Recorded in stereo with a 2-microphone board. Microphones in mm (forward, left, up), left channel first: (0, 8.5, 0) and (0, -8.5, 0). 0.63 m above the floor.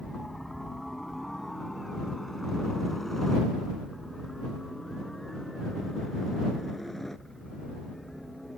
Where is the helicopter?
15° left (ahead or behind); by 8.6 s 20° left (ahead or behind).